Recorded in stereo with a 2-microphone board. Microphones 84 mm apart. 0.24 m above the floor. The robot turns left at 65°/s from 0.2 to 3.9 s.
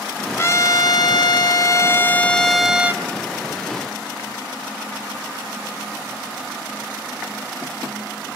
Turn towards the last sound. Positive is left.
turn(degrees=-85)